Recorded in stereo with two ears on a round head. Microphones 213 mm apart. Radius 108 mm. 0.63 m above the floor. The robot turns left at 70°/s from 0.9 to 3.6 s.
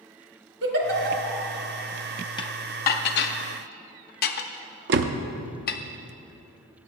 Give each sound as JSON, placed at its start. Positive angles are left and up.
{"t": 0.6, "sound": "a giggle", "side_deg": -55, "distance_m": 1.5}
{"t": 2.4, "sound": "dishes clattering", "side_deg": 20, "distance_m": 0.6}
{"t": 4.9, "sound": "a door slam", "side_deg": -50, "distance_m": 0.5}